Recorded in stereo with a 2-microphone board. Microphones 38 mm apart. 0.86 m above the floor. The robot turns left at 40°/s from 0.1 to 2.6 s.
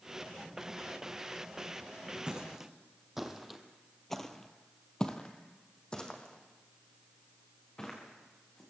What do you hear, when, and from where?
2.3 s footsteps: 25° right (ahead or behind), 2 m; by 8.6 s 20° left (ahead or behind), 4 m